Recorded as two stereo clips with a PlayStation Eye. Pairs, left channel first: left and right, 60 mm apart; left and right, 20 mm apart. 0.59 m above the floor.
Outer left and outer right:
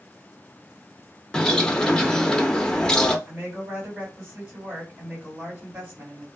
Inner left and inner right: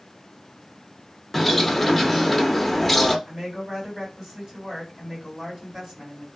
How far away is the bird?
About 0.5 m.